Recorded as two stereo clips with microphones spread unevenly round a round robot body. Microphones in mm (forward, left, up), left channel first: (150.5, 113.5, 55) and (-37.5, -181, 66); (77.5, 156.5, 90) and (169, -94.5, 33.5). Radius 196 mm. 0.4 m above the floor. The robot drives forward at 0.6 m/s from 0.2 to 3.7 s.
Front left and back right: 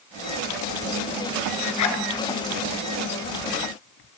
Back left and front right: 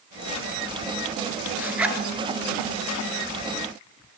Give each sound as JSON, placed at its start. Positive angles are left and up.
{"t": 1.6, "sound": "a zipper", "azimuth_deg": 15, "distance_m": 1.5}